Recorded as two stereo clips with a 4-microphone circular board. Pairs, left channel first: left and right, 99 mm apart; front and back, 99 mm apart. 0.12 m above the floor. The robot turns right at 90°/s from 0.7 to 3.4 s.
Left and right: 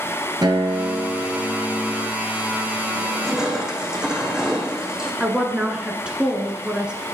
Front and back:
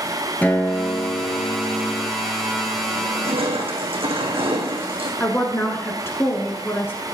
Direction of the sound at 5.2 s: 25° right.